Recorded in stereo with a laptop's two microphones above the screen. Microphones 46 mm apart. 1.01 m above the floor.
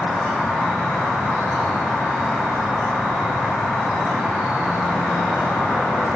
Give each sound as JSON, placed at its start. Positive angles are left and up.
{"t": 0.0, "sound": "an insect", "side_deg": -35, "distance_m": 1.3}